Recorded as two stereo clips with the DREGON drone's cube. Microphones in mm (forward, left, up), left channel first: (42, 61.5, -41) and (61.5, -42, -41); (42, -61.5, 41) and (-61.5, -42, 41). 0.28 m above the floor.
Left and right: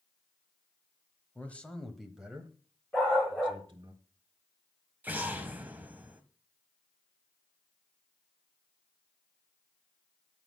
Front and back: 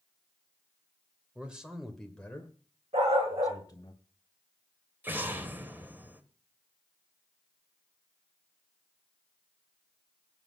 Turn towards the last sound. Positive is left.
turn(degrees=-135)